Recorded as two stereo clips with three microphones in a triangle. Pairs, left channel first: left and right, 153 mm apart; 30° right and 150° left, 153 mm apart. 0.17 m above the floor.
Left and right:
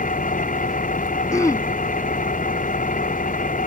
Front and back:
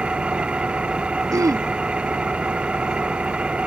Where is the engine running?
70° left.